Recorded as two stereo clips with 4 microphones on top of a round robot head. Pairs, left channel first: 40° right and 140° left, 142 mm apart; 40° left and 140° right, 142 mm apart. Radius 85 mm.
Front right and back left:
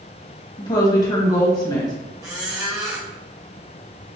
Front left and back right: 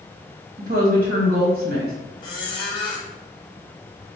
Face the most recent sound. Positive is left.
turn(degrees=85)